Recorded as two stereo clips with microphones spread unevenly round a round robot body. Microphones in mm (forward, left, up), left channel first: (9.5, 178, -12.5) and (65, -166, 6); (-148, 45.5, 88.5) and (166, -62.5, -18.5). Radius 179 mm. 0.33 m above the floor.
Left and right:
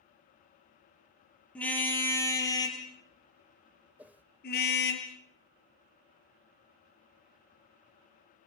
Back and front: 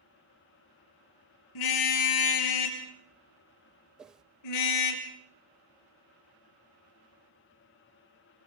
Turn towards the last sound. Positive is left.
turn(degrees=5)